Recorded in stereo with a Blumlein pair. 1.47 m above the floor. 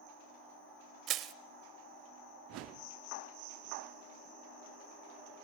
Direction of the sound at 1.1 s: 30° right.